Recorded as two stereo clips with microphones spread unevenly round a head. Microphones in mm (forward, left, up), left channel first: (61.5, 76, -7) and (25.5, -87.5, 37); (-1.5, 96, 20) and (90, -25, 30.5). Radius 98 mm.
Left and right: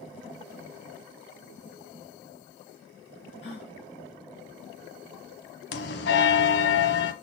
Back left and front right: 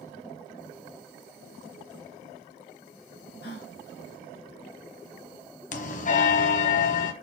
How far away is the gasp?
About 4.5 m.